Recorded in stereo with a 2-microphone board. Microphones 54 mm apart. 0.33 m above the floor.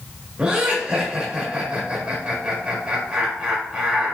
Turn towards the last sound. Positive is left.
turn(degrees=-20)  # may be behind; listen again after turning